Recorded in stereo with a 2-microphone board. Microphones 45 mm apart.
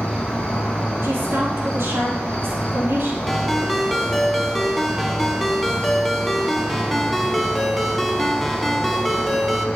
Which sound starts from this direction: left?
An insect, at 0.0 s.